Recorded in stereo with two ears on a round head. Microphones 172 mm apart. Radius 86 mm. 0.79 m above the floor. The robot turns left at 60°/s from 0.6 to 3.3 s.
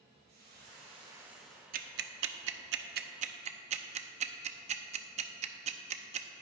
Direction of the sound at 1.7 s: 45° right (ahead or behind).